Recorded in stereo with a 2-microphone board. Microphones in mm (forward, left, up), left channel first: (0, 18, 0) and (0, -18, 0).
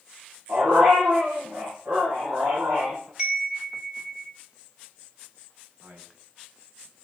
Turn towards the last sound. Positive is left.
turn(degrees=-55)  # may be behind; listen again after turning